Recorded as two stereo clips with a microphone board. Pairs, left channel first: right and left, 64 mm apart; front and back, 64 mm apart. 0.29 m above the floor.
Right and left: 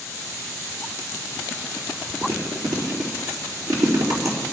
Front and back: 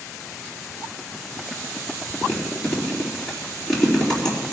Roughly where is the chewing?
Left.